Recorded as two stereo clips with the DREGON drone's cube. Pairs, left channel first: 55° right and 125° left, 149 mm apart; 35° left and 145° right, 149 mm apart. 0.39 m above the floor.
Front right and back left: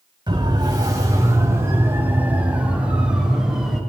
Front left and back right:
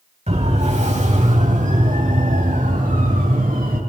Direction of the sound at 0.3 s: Straight behind.